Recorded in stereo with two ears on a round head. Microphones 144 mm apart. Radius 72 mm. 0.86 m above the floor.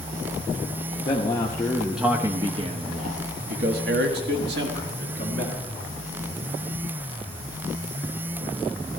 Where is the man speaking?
30° left (ahead or behind), 1.0 m; by 5.6 s 75° right (ahead or behind), 2.5 m.